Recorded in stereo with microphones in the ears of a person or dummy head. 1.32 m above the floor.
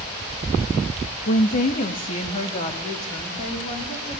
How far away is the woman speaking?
About 1.2 m.